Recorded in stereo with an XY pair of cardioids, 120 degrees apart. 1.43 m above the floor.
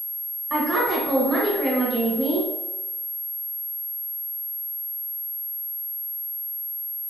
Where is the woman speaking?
30° right, 1.1 m.